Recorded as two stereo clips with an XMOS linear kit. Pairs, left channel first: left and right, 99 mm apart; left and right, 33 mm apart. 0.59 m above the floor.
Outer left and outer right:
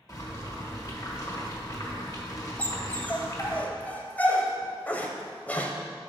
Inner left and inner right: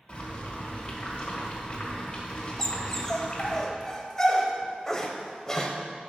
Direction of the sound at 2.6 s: 15° left (ahead or behind).